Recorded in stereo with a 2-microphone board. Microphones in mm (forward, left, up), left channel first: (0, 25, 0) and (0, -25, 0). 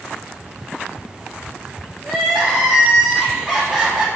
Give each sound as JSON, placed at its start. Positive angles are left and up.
{"t": 2.0, "sound": "crying", "side_deg": -20, "distance_m": 2.5}